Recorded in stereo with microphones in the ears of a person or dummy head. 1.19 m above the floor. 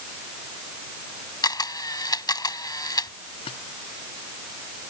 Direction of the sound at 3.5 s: 25° left (ahead or behind).